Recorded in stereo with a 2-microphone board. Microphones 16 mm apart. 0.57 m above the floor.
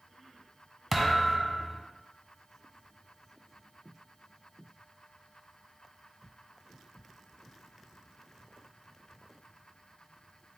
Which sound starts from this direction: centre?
A thud, at 0.9 s.